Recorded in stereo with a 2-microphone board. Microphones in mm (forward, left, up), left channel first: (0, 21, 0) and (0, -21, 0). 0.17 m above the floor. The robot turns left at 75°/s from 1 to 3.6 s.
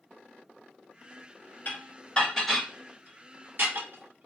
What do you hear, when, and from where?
1.6 s dishes clattering: 50° left (ahead or behind), 1.5 m; by 4.3 s 60° right (ahead or behind), 1.5 m